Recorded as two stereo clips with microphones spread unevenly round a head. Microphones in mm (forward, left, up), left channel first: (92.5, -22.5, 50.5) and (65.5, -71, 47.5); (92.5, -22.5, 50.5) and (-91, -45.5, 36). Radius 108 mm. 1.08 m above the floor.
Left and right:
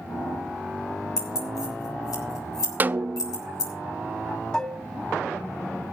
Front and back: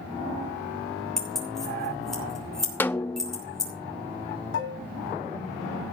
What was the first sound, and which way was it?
Keys jangling, 95° left.